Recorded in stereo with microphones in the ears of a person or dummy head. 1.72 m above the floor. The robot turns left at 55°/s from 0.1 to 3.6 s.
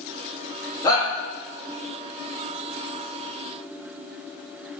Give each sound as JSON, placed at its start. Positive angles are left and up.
{"t": 0.8, "sound": "a shout", "side_deg": 20, "distance_m": 2.5}